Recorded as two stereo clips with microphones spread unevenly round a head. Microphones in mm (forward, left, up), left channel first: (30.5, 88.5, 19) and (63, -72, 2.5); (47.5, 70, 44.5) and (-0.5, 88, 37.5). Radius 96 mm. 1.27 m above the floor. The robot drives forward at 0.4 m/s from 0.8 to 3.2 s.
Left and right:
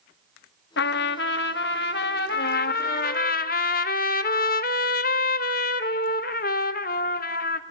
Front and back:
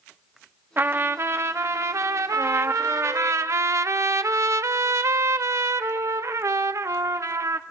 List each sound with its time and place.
0.8 s a trumpet: 110° left, 0.9 m; by 3.3 s 150° left, 1.5 m
2.3 s a trumpet: 105° left, 0.6 m; by 7.6 s 135° left, 0.7 m